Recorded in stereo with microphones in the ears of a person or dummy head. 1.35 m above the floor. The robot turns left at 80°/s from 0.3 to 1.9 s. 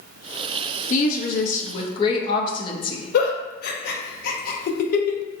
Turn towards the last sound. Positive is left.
turn(degrees=60)  # may be behind; listen again after turning